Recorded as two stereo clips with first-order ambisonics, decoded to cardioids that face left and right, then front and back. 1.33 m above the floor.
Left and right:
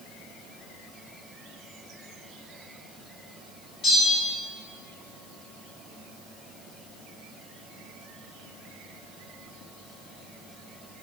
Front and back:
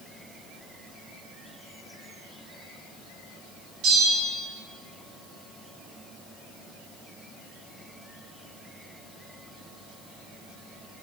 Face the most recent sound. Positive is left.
turn(degrees=140)